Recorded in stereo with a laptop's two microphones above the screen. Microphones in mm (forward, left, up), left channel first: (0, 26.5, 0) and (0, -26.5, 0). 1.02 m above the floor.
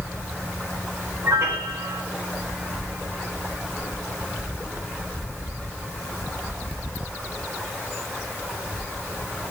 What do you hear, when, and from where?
1.2 s a piano: 60° right (ahead or behind), 4 m